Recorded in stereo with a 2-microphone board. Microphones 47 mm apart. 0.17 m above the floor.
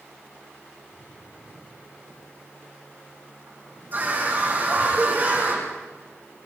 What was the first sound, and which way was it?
A drawer, 35° right (ahead or behind).